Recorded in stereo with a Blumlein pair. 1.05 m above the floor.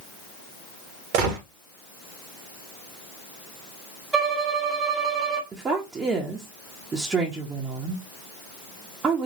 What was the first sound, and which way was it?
A gunshot, 45° right.